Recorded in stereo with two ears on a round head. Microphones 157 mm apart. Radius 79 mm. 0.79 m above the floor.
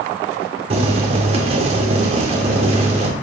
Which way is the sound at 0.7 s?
35° right (ahead or behind).